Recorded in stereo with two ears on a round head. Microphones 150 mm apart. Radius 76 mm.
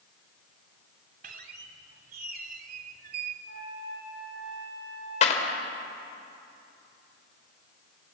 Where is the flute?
75° right (ahead or behind), 8.5 m.